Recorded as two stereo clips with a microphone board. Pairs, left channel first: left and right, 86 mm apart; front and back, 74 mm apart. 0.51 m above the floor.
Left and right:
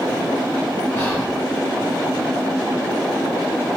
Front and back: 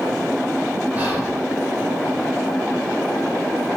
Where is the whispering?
130° left, 1.1 m.